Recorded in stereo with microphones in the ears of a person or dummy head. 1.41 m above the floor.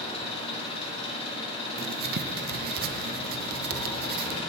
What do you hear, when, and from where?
0.0 s an engine running: 35° left (ahead or behind), 2.5 m
1.8 s writing: 55° right (ahead or behind), 0.7 m